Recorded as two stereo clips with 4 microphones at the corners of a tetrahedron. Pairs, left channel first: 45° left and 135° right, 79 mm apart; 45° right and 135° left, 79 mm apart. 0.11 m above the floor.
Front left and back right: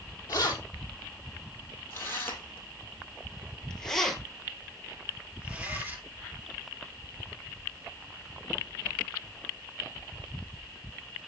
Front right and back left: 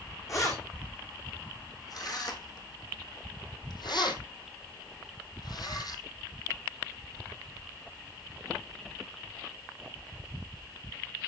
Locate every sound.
0.3 s keys jangling: straight ahead, 3.5 m; by 6.0 s 75° right, 2 m